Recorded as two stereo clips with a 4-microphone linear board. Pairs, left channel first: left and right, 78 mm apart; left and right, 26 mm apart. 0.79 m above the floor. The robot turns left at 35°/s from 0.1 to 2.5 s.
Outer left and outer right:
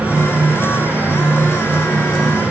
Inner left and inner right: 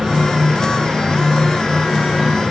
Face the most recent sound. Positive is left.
No sound to turn to.